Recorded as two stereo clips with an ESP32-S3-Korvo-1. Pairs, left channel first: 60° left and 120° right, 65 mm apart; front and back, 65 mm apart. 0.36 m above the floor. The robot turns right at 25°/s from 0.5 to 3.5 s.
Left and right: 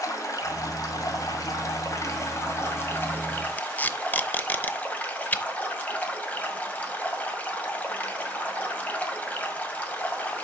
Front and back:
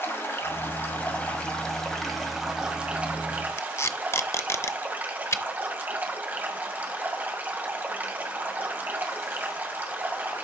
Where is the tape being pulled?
10° left, 0.6 m.